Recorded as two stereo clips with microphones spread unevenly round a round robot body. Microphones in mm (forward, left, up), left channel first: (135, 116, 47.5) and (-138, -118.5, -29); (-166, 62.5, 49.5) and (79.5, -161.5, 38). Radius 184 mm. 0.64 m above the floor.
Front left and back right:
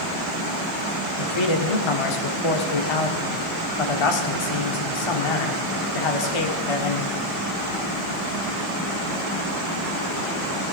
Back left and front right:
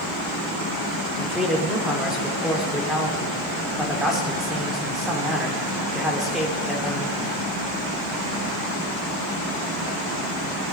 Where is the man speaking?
45° left, 2 m.